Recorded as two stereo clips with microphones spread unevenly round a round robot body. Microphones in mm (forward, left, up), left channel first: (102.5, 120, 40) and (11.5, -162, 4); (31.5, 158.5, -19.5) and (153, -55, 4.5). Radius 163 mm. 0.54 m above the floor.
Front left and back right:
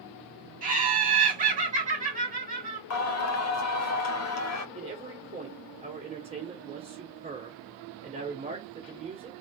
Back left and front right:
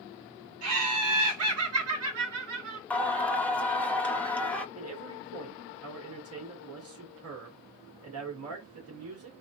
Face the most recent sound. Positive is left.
turn(degrees=-50)